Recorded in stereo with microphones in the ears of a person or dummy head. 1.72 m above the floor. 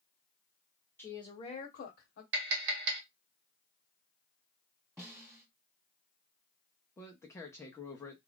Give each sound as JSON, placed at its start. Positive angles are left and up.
{"t": 1.0, "sound": "a woman speaking", "side_deg": 10, "distance_m": 0.9}
{"t": 2.3, "sound": "tapping", "side_deg": -60, "distance_m": 1.2}
{"t": 5.0, "sound": "a snare drum", "side_deg": 5, "distance_m": 1.2}
{"t": 7.0, "sound": "a man speaking", "side_deg": 15, "distance_m": 0.5}